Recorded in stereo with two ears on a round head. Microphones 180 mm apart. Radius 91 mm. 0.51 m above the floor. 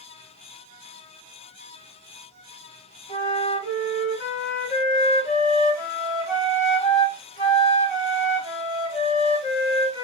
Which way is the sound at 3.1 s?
40° left (ahead or behind).